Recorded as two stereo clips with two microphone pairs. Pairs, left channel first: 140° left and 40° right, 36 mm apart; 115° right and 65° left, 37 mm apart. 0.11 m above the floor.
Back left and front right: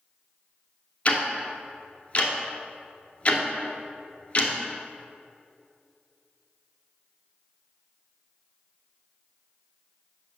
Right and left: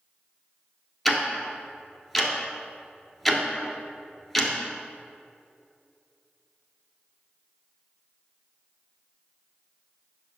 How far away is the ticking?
About 1.0 m.